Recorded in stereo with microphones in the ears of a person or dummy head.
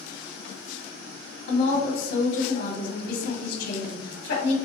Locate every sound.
1.5 s a woman speaking: 65° left (ahead or behind), 1.2 m